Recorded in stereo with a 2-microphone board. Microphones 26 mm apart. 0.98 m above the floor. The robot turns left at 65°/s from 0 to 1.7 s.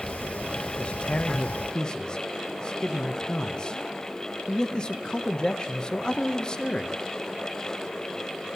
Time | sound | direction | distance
0.8 | a man speaking | 110° left | 0.6 m